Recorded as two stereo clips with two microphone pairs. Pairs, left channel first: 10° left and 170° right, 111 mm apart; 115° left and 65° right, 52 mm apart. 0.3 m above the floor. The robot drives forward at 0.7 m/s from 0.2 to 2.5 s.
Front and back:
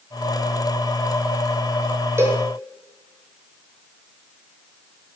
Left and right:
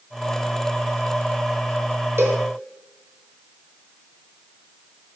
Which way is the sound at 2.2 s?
105° right.